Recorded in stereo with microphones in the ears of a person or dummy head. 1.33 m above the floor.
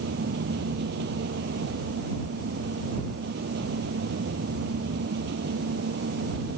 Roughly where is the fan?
Right.